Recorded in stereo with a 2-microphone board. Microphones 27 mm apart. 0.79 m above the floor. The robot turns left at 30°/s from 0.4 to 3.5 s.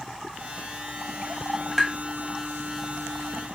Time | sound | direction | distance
1.8 | tapping | centre (ahead or behind) | 0.5 m